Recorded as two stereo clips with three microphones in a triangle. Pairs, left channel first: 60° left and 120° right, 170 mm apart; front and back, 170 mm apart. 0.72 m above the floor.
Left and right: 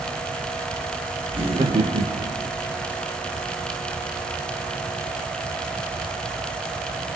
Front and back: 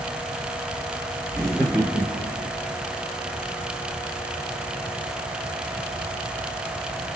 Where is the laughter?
70° right, 1.5 m; by 2.5 s 145° right, 1.2 m.